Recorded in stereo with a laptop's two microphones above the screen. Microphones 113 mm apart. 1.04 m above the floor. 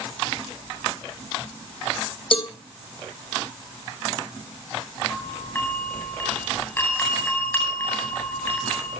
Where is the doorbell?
20° left (ahead or behind), 9.5 m.